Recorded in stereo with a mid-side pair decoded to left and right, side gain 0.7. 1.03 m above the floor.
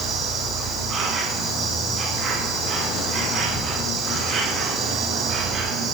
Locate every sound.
0.0 s an insect: 35° right, 6.5 m